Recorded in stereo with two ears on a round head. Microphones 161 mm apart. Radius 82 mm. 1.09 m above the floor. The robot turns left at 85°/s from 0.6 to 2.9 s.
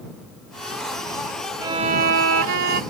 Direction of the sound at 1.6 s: 15° right.